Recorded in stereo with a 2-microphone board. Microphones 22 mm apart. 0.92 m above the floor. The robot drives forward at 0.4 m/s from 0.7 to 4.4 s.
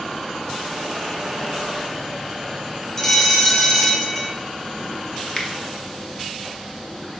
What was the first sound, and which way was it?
A bell, 15° left (ahead or behind).